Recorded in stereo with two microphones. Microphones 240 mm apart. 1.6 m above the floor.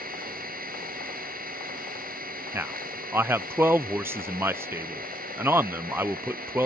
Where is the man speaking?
10° right (ahead or behind).